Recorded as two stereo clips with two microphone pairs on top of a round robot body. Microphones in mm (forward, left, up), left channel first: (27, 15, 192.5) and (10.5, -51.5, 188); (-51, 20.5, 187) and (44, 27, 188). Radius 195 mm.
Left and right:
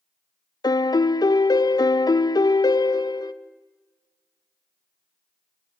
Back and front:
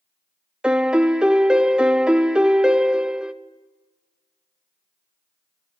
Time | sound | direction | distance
0.6 | a piano | 85° left | 0.8 m